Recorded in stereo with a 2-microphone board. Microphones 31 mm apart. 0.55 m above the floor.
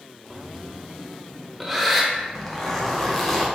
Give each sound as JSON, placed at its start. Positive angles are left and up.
{"t": 0.3, "sound": "breathing", "side_deg": 0, "distance_m": 0.9}
{"t": 2.1, "sound": "a zipper", "side_deg": 10, "distance_m": 1.0}